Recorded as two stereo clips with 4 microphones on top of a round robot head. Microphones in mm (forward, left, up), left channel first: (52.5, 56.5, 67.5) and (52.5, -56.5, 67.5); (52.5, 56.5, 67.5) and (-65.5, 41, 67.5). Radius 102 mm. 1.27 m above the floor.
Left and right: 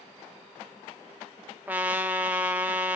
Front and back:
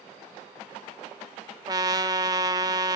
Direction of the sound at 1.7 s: 155° right.